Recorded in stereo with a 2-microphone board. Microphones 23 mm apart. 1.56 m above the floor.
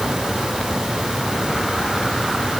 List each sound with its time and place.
Only background noise.